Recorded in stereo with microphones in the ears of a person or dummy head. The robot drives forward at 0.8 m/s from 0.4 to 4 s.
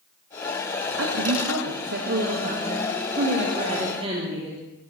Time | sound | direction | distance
1.0 | a woman speaking | 65° right (ahead or behind) | 1.4 m